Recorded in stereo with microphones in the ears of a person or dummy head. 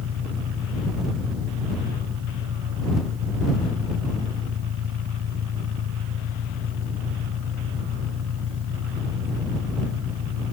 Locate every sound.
0.0 s an engine running: 80° right